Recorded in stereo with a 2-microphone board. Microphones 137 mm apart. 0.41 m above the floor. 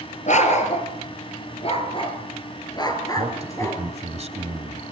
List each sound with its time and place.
0.3 s a dog barking: 60° left (ahead or behind), 3 m; by 3.8 s 20° left (ahead or behind), 3 m
3.2 s a man speaking: 50° right (ahead or behind), 1.9 m